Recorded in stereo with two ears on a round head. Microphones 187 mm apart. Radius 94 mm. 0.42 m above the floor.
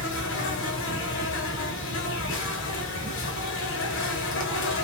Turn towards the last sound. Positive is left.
turn(degrees=65)  # may be behind; listen again after turning